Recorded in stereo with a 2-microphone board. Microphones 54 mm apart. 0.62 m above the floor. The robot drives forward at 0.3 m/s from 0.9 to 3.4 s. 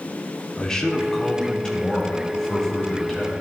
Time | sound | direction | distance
0.6 | a man speaking | 15° left (ahead or behind) | 1.1 m